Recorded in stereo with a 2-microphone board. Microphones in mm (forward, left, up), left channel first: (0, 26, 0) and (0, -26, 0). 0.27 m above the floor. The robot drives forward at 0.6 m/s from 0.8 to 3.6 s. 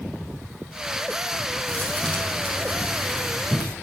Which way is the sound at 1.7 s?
30° left (ahead or behind).